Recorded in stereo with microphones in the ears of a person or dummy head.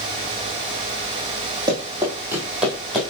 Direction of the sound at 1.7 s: 20° right (ahead or behind).